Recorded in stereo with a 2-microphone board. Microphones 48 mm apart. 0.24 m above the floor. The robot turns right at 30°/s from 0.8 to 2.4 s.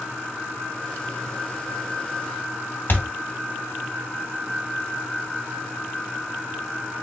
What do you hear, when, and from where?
2.9 s a thud: 45° left (ahead or behind), 0.8 m